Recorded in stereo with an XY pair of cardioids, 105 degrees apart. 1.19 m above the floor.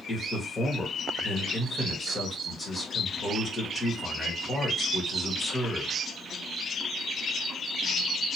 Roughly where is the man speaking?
Ahead left.